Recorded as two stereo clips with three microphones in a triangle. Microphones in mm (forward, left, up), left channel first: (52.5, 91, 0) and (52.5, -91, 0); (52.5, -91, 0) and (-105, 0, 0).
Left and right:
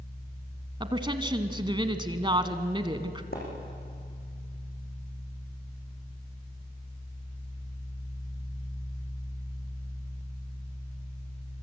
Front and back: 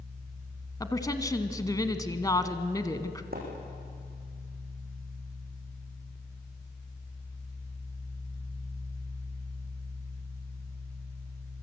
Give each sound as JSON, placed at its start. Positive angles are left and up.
{"t": 0.8, "sound": "a woman speaking", "azimuth_deg": -75, "distance_m": 1.4}
{"t": 3.3, "sound": "a splash", "azimuth_deg": 120, "distance_m": 7.5}